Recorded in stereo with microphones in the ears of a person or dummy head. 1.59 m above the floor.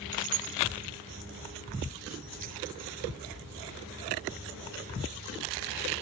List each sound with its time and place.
0.1 s keys jangling: 40° right (ahead or behind); by 3.0 s 45° right (ahead or behind)